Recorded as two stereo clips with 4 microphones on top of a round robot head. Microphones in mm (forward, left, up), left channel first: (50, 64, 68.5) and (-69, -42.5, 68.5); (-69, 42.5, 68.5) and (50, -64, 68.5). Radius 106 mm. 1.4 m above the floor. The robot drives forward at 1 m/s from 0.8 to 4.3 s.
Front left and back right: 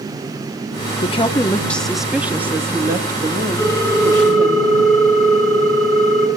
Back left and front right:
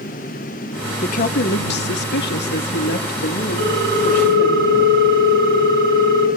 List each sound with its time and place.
1.0 s a woman speaking: 90° left, 1.1 m; by 4.6 s 160° left, 3.5 m
3.6 s a ringtone: 35° right, 7 m; by 6.3 s 40° right, 6.5 m